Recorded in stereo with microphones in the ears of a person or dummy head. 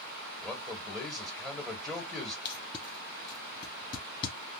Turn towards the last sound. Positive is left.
turn(degrees=25)  # may be behind; listen again after turning